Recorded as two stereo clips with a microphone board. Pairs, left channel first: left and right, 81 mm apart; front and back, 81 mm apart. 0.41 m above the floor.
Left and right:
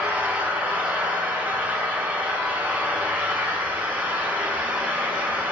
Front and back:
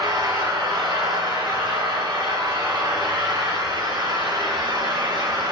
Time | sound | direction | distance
0.0 | an engine running | 160° right | 2 m